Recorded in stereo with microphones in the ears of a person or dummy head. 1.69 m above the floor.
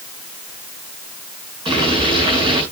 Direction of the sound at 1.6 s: 30° right (ahead or behind).